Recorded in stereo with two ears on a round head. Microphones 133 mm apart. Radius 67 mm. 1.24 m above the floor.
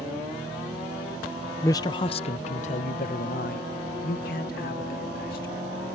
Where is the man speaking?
20° left (ahead or behind); by 5.6 s 70° left (ahead or behind).